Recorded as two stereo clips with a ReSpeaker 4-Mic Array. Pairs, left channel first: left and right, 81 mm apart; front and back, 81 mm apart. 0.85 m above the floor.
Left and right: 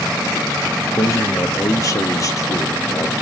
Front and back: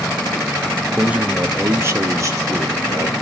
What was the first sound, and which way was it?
A man speaking, 105° left.